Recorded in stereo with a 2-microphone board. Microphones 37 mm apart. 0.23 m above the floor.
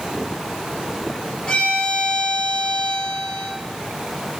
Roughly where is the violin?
Centre.